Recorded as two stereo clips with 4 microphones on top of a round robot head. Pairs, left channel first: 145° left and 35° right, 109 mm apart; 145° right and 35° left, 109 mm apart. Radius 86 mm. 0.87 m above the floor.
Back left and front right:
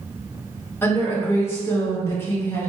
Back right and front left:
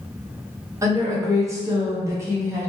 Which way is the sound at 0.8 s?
85° left.